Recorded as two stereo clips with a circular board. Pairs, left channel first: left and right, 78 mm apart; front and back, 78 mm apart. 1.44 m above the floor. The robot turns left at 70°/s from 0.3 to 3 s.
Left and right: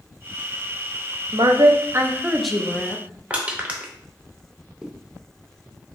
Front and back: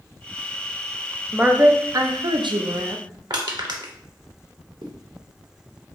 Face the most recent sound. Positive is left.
turn(degrees=-170)